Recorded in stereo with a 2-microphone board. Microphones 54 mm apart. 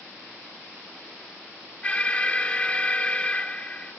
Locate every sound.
1.8 s an alarm: 20° left (ahead or behind), 1.1 m